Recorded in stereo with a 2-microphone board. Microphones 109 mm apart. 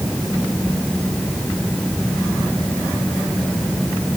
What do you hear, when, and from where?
Only background noise.